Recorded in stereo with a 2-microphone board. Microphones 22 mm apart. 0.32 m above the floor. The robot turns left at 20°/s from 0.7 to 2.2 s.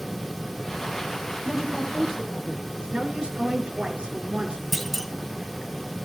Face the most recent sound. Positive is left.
turn(degrees=0)  # may be behind; listen again after turning